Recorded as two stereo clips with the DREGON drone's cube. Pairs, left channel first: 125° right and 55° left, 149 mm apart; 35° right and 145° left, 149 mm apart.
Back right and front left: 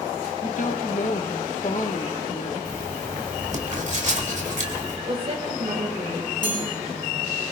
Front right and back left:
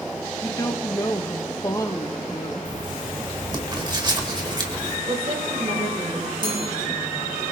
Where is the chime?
85° left, 9 m.